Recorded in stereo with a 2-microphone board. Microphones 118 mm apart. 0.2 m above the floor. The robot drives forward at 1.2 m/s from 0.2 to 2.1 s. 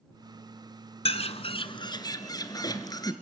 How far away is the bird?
About 1.0 m.